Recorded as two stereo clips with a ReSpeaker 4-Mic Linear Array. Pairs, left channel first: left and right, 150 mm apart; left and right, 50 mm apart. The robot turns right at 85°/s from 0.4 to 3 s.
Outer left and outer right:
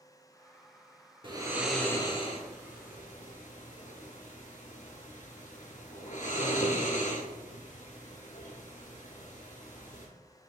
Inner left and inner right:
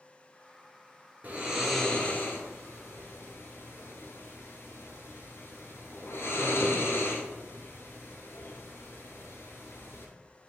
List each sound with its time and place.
1.2 s snoring: 35° right (ahead or behind), 0.9 m; by 10.1 s 60° left (ahead or behind), 0.9 m